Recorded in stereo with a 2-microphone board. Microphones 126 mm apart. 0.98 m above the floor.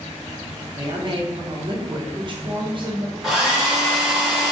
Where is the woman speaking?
40° right (ahead or behind), 0.6 m.